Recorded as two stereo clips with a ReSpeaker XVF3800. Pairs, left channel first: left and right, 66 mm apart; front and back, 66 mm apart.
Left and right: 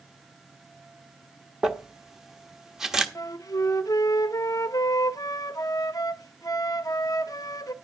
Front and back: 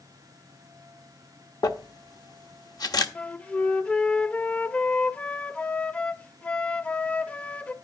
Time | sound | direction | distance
1.6 | crumpling | 5° right | 1.2 m
3.1 | a flute | 65° left | 0.6 m